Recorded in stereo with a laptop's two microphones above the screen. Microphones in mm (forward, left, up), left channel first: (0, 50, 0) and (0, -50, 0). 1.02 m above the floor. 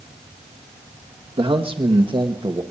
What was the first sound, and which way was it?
A man speaking, 65° right (ahead or behind).